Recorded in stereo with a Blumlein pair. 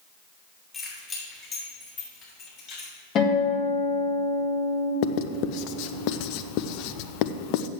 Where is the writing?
45° left, 0.5 m.